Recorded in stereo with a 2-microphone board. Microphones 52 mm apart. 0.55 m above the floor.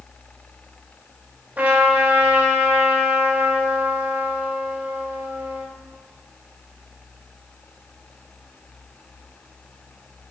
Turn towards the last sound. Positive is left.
turn(degrees=-40)  # may be behind; listen again after turning